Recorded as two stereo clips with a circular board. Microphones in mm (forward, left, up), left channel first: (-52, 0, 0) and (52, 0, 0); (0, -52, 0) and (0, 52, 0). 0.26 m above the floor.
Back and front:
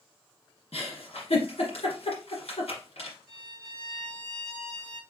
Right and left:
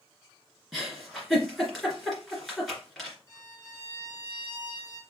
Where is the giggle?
Straight behind, 2.5 m.